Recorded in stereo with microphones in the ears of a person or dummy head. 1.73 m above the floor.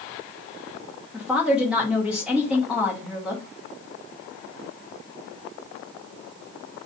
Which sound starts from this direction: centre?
A woman speaking, at 1.1 s.